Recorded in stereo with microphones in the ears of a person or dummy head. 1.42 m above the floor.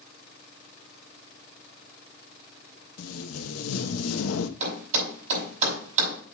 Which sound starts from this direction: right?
A thud, at 4.6 s.